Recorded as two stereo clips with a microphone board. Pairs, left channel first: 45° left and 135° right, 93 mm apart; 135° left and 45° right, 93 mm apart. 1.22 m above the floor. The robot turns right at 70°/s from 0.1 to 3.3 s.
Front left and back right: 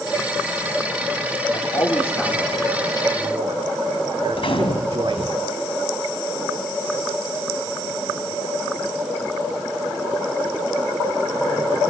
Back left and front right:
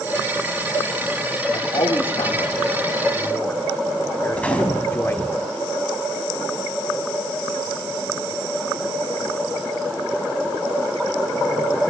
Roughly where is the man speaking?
Left.